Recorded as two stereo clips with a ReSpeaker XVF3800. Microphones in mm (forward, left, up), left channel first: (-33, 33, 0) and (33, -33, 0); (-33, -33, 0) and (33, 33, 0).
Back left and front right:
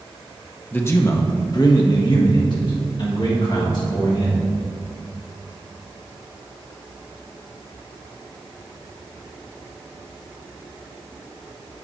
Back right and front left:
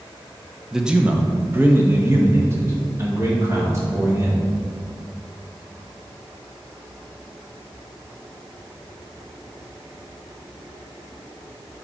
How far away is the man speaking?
About 0.8 m.